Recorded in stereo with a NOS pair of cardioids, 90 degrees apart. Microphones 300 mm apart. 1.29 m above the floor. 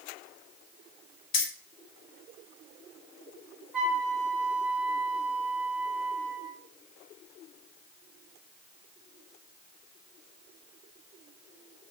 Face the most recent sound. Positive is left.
turn(degrees=-5)